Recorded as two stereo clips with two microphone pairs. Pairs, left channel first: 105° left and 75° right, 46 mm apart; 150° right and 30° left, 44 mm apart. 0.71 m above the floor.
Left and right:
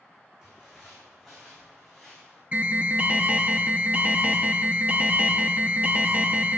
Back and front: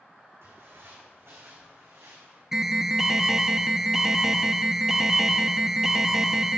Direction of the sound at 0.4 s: 5° left.